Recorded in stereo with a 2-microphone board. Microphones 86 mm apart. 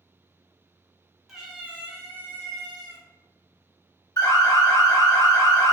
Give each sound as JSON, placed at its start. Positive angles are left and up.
{"t": 1.3, "sound": "a cat meowing", "side_deg": -5, "distance_m": 0.8}
{"t": 4.2, "sound": "an alarm", "side_deg": 45, "distance_m": 0.9}